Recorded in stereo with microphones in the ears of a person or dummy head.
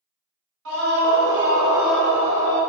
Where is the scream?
70° right (ahead or behind), 1.0 m; by 2.6 s 30° left (ahead or behind), 1.1 m.